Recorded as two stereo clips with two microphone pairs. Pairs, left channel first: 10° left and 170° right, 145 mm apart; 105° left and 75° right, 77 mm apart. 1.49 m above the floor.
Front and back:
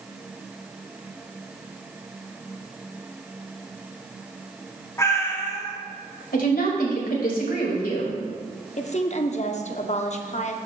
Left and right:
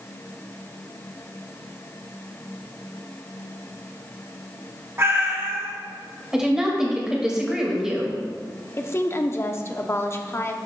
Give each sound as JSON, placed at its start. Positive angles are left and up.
{"t": 5.0, "sound": "a cat meowing", "azimuth_deg": -45, "distance_m": 1.2}
{"t": 6.3, "sound": "a woman speaking", "azimuth_deg": 5, "distance_m": 2.0}
{"t": 8.8, "sound": "a woman speaking", "azimuth_deg": 50, "distance_m": 0.7}